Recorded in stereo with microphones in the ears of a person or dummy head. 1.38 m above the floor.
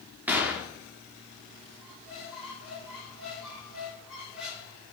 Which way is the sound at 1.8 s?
5° right (ahead or behind).